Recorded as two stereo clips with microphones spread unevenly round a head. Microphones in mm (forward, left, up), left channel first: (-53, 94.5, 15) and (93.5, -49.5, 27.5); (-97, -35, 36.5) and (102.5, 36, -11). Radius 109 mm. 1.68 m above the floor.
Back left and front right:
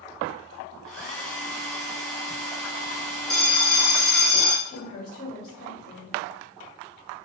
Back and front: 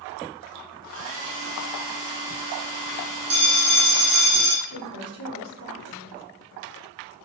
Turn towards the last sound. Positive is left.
turn(degrees=170)